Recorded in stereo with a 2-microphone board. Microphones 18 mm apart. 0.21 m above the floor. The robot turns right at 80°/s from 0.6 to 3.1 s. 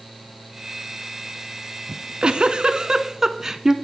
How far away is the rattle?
No rattle in this recording.